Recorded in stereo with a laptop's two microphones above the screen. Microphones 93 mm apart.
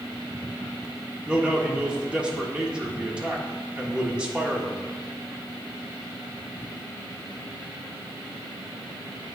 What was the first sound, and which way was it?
A man speaking, 10° right (ahead or behind).